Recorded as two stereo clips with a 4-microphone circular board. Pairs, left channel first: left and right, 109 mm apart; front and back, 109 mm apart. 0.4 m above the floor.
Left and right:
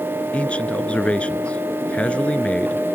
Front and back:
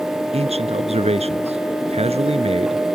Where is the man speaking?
170° left.